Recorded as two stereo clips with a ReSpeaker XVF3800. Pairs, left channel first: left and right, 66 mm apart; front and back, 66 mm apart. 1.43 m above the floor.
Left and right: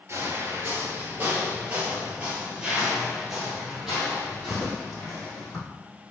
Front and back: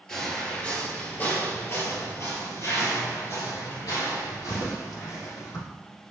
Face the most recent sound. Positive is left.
turn(degrees=5)